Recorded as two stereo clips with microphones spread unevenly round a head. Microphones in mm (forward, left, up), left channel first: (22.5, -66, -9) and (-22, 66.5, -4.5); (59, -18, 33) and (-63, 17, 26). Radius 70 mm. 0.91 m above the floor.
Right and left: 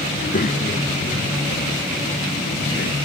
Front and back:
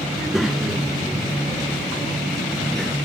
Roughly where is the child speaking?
Right.